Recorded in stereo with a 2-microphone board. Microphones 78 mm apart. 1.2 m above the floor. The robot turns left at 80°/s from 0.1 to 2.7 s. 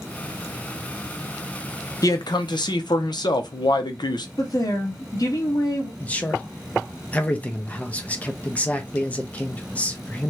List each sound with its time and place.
2.0 s a man speaking: 130° left, 0.6 m; by 4.3 s 75° left, 0.6 m
4.4 s a woman speaking: 50° left (ahead or behind), 1.0 m
6.0 s a man speaking: 20° left (ahead or behind), 0.6 m